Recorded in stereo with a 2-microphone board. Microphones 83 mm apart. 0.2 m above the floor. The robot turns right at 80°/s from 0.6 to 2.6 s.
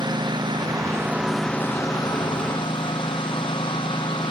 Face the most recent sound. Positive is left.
turn(degrees=100)